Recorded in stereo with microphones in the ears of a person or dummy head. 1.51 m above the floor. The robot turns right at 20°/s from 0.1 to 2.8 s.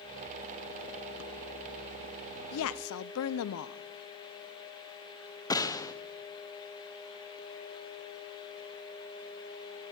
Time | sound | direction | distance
2.5 | a woman speaking | 75° left (ahead or behind) | 0.5 m
5.5 | a gunshot | 15° left (ahead or behind) | 0.7 m